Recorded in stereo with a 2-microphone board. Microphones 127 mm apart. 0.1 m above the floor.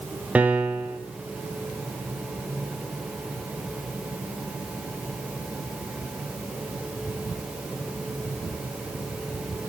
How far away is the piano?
About 1.3 m.